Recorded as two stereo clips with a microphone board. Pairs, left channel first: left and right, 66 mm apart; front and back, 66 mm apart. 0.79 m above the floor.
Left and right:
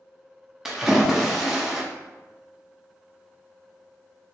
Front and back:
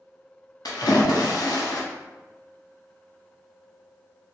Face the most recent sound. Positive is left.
turn(degrees=-5)